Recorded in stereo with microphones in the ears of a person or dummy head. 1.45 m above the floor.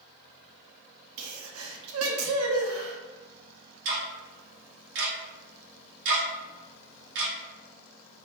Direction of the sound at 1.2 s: 80° right.